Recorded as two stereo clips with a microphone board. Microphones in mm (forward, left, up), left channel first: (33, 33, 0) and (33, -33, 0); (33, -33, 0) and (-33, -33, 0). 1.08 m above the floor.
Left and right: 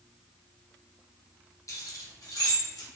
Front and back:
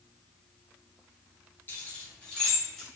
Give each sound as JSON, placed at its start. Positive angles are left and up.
{"t": 1.7, "sound": "keys jangling", "azimuth_deg": 55, "distance_m": 0.7}